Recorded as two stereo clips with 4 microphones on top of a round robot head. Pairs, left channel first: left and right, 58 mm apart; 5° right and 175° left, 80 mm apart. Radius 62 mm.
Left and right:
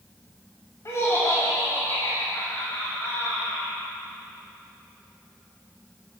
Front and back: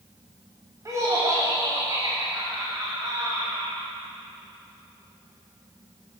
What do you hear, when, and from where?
0.8 s laughter: 125° left, 2.5 m